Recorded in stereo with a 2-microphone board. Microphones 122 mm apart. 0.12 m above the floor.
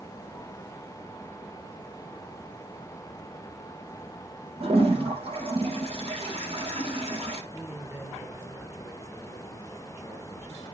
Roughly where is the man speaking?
Centre.